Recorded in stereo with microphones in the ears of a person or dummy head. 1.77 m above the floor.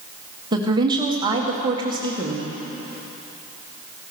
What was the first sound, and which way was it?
A woman speaking, 25° right (ahead or behind).